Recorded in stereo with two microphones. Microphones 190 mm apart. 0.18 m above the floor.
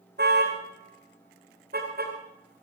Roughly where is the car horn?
Right.